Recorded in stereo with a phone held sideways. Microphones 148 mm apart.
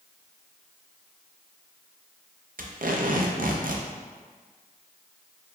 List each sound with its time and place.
2.6 s tape being pulled: 65° right (ahead or behind), 0.5 m